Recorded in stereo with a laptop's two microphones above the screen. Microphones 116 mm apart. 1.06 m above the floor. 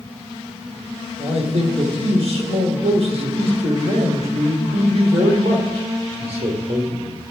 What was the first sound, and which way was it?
A man speaking, 55° right (ahead or behind).